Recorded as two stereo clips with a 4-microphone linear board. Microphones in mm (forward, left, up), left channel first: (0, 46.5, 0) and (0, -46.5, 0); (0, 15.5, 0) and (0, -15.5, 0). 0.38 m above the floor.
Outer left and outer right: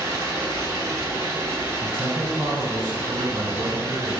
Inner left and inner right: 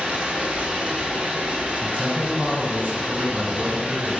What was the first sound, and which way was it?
Running water, 30° right (ahead or behind).